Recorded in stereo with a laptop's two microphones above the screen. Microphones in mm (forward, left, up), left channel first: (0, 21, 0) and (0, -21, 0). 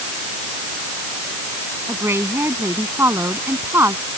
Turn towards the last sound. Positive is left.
turn(degrees=-70)  # may be behind; listen again after turning